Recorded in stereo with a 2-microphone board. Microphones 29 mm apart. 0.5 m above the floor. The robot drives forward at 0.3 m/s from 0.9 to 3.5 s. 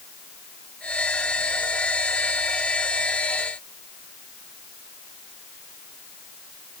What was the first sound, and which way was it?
Only background noise.